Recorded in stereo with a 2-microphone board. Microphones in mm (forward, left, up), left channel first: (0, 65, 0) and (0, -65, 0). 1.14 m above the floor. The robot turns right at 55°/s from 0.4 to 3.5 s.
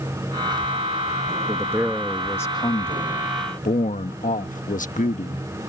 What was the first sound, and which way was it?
A man speaking, 30° right.